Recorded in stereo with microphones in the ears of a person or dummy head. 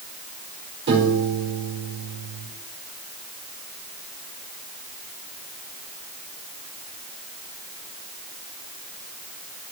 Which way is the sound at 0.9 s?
60° right (ahead or behind).